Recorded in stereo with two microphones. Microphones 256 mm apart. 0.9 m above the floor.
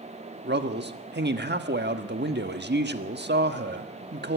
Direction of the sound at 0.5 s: 40° right (ahead or behind).